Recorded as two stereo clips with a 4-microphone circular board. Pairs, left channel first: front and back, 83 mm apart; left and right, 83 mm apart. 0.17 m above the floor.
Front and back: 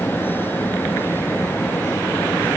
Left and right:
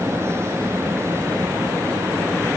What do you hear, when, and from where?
Only background noise.